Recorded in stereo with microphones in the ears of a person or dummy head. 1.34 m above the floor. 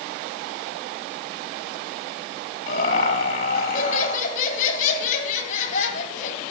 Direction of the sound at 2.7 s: 50° left (ahead or behind).